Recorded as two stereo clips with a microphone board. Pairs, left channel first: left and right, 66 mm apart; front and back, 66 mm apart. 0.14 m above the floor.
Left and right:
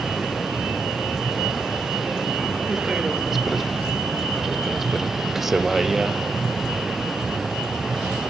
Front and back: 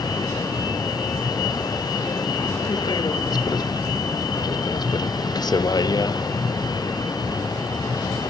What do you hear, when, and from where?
0.0 s a vehicle: 5° right